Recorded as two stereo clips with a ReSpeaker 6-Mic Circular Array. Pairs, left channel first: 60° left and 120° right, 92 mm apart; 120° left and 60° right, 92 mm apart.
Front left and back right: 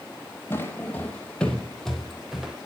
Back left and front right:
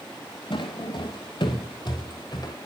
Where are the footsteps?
120° left, 2.5 m; by 2.6 s 160° left, 2.5 m.